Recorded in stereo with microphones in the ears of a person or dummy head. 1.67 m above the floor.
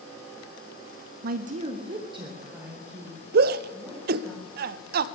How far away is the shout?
About 0.6 m.